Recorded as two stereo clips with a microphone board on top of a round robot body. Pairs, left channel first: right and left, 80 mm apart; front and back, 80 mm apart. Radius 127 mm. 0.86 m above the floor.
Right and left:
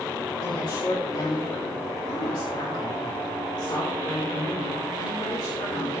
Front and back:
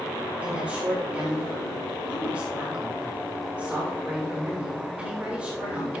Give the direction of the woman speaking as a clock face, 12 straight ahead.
4 o'clock.